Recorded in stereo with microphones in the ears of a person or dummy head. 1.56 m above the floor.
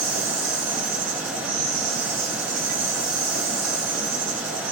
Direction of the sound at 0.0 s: 45° right (ahead or behind).